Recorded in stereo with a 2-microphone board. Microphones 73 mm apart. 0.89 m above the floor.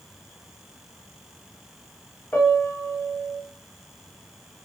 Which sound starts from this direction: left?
A piano, at 2.3 s.